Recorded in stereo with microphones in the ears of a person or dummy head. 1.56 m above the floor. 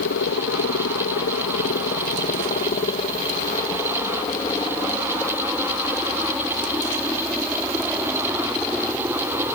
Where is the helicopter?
60° left (ahead or behind); by 9.6 s 10° right (ahead or behind).